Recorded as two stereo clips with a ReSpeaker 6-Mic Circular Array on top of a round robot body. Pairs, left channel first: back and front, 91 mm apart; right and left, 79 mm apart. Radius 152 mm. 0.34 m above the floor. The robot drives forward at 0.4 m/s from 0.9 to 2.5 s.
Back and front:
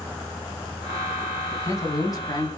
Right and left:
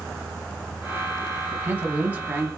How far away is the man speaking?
About 1.1 m.